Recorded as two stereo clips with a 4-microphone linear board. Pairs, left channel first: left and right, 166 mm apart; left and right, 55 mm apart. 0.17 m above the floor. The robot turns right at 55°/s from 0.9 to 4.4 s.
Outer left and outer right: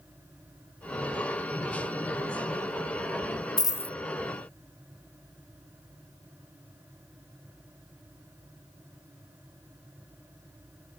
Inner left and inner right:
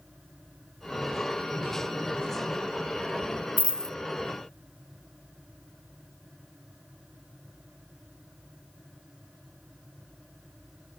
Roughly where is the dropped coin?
Left.